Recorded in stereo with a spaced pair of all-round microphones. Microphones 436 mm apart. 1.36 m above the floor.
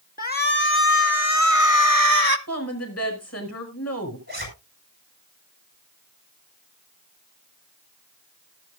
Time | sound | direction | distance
0.2 | a shout | 20° left (ahead or behind) | 1.9 m
2.5 | a woman speaking | 35° left (ahead or behind) | 6 m
4.3 | a zipper | 20° right (ahead or behind) | 8 m